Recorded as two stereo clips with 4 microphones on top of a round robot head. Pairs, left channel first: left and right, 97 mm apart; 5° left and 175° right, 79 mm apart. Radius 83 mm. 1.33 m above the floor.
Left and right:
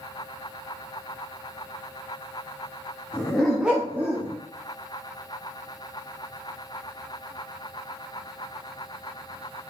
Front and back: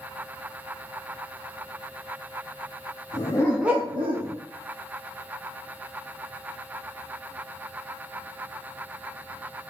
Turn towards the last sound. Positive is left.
turn(degrees=-165)